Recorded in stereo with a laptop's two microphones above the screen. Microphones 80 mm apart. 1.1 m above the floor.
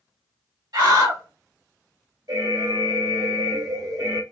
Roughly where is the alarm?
Right.